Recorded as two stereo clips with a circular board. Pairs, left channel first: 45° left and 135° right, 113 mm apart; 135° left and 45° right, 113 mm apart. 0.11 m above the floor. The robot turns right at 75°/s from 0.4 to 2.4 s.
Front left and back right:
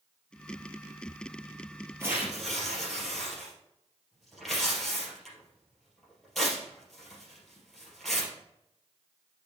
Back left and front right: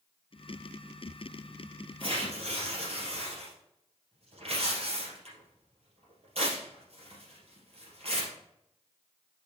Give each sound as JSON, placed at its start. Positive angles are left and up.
{"t": 2.0, "sound": "tearing paper", "azimuth_deg": -75, "distance_m": 3.0}